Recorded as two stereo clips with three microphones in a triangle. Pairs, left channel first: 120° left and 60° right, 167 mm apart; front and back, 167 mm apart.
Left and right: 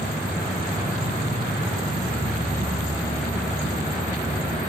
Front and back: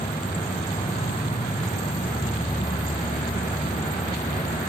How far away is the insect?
About 3 m.